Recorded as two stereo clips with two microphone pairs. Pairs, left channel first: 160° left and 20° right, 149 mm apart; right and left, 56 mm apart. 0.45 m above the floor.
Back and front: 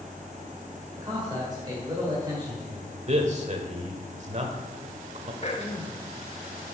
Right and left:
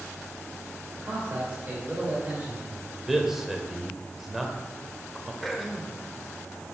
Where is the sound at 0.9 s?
35° left, 2.0 m.